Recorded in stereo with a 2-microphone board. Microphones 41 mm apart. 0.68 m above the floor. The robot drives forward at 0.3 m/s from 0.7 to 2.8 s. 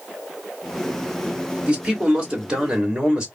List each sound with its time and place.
1.7 s a man speaking: 25° right (ahead or behind), 1.7 m; by 3.3 s 20° right (ahead or behind), 2 m